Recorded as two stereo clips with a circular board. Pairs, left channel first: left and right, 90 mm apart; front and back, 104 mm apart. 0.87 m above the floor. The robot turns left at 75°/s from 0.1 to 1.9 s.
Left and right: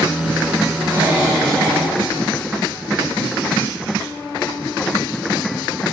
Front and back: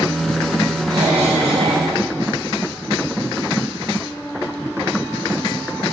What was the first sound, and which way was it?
A cough, 135° right.